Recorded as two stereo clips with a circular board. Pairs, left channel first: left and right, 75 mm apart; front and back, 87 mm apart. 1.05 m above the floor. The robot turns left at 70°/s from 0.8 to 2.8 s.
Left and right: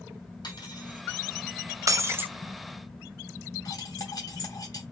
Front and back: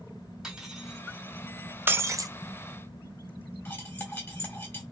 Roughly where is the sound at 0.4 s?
Left.